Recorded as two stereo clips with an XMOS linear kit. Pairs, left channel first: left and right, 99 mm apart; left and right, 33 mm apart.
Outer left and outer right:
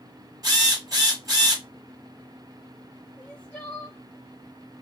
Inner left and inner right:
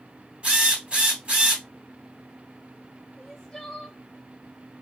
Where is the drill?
40° right (ahead or behind), 1.2 m.